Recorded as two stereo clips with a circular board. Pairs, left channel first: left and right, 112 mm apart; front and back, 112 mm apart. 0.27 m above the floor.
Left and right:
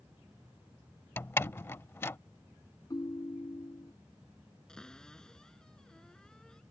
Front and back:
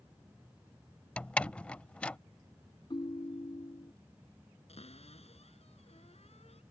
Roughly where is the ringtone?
Ahead left.